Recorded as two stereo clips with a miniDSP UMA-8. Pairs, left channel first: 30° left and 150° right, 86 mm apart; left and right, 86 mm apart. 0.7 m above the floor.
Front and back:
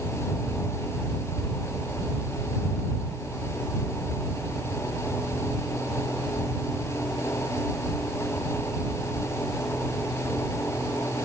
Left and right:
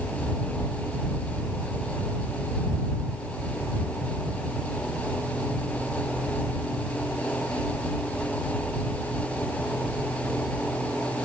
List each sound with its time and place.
Only background noise.